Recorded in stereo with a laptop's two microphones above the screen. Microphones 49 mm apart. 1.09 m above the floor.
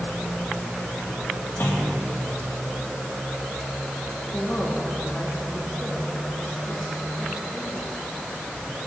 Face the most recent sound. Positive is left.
turn(degrees=30)  # may be behind; listen again after turning